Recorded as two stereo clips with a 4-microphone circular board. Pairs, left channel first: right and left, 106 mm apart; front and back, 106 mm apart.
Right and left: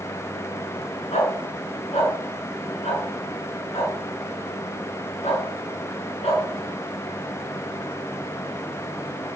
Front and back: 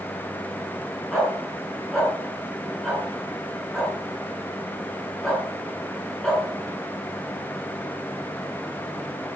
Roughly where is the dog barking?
Right.